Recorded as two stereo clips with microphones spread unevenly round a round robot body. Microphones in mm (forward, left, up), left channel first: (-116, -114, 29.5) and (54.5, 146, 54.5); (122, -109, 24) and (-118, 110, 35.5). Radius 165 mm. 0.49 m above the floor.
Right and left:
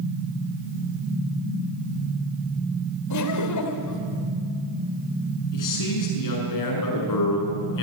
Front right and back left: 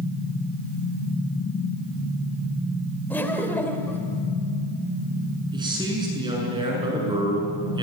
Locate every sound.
3.1 s laughter: 125° right, 2.5 m
5.5 s a man speaking: 145° right, 7 m